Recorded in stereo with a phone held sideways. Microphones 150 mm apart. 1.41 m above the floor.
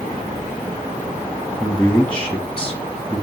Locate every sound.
1.6 s a man speaking: 5° left (ahead or behind), 1.8 m